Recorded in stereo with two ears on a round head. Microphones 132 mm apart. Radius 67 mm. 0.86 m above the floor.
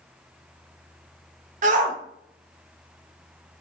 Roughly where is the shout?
Right.